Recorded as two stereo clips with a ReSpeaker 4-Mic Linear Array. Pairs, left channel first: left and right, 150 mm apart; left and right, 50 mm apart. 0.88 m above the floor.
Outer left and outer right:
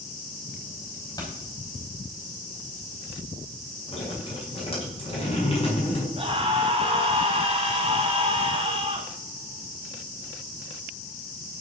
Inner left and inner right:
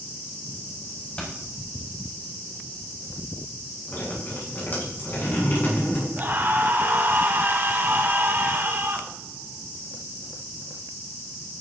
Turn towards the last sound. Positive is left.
turn(degrees=-40)  # may be behind; listen again after turning